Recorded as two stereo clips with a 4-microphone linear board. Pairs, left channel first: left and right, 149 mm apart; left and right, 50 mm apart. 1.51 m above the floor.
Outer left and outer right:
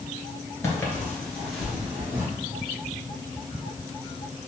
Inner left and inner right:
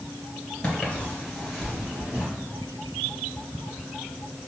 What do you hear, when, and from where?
0.6 s footsteps: 20° left (ahead or behind), 1.5 m; by 2.2 s 15° right (ahead or behind), 1.7 m